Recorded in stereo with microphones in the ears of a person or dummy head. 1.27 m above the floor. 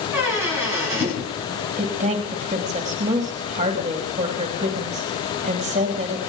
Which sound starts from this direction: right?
A woman speaking, at 1.8 s.